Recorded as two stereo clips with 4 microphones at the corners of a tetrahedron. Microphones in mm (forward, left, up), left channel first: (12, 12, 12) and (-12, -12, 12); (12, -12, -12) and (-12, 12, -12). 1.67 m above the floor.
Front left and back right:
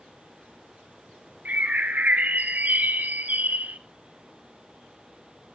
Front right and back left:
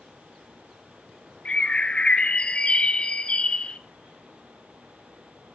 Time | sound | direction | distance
1.4 | a bird | 100° right | 1.0 m